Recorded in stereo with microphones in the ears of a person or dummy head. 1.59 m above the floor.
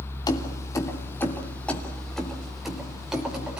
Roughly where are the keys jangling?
Left.